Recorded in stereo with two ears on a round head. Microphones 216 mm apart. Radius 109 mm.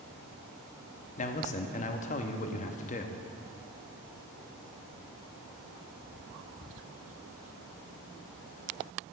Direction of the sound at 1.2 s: 35° left (ahead or behind).